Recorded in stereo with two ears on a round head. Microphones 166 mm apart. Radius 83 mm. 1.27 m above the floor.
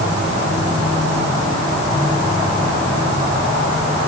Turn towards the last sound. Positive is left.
No sound to turn to.